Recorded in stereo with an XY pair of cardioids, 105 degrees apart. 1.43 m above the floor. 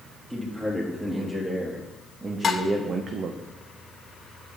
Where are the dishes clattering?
40° left, 1.3 m.